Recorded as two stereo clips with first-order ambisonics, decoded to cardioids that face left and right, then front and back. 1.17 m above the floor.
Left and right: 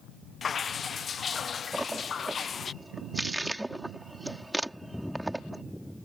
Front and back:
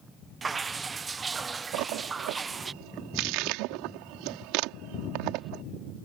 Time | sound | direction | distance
0.4 | dripping | 130° left | ?
1.7 | a splash | 175° right | ?